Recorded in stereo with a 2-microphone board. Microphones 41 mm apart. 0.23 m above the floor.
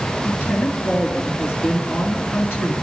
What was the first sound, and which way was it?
A woman speaking, 60° left (ahead or behind).